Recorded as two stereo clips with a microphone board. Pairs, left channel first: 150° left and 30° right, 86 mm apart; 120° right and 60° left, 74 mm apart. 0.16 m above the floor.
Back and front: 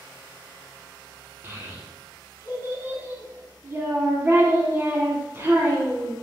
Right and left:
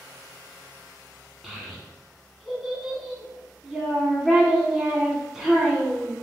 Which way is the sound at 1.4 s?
20° right.